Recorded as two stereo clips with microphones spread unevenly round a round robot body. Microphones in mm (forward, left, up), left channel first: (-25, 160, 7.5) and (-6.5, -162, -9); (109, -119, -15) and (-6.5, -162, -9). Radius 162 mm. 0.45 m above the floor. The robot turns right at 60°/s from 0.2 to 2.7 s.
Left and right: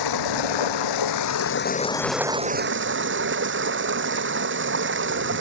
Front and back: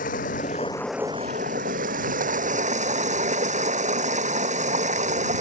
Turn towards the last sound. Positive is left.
turn(degrees=-140)